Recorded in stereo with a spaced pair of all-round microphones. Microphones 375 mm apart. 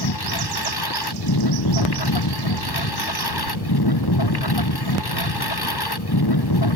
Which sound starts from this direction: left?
A lawn mower, at 0.0 s.